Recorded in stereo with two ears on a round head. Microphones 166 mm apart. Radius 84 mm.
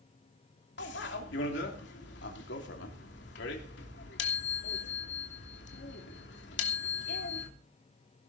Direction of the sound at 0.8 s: 75° left (ahead or behind).